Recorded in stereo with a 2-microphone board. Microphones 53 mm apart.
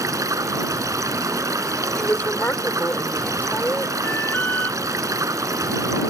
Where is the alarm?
40° left (ahead or behind).